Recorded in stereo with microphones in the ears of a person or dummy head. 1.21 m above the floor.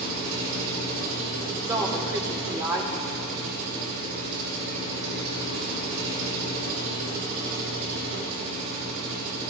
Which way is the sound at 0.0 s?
85° right.